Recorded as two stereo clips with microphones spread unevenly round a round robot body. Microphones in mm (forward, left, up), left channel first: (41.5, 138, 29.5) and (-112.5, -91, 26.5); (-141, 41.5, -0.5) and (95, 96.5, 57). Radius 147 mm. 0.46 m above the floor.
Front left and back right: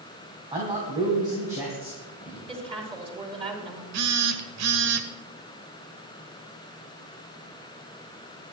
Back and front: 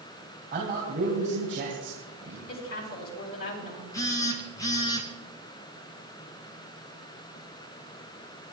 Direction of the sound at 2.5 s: 165° left.